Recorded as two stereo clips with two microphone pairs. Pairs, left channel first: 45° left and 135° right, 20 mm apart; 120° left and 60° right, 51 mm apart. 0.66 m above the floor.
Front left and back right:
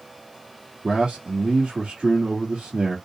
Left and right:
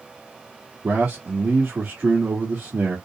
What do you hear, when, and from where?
0.8 s a man speaking: 100° right, 1.4 m